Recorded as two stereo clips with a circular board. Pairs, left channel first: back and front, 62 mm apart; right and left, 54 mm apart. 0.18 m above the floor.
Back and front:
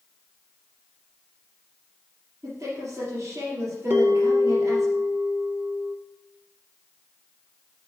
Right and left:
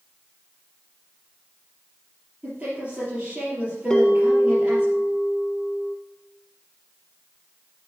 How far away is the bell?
About 0.9 m.